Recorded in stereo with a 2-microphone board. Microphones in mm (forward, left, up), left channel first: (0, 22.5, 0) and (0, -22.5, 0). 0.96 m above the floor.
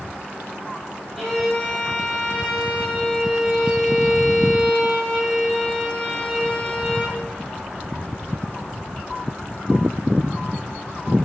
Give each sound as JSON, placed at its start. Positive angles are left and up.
{"t": 1.2, "sound": "a violin", "side_deg": 5, "distance_m": 0.8}